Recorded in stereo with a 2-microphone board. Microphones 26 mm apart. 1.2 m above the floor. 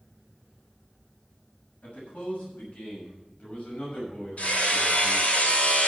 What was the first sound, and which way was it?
A man speaking, 75° left (ahead or behind).